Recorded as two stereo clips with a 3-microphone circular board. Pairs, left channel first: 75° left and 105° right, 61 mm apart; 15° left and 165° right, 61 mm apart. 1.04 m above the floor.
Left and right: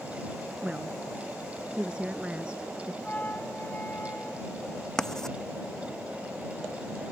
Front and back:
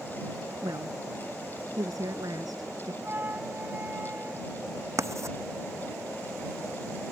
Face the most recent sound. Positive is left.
turn(degrees=155)